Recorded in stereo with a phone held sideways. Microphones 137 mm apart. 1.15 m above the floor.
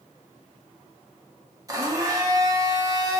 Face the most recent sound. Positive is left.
turn(degrees=-25)  # may be behind; listen again after turning